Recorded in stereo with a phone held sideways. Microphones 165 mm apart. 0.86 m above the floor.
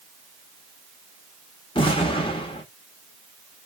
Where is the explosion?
30° left (ahead or behind), 0.9 m.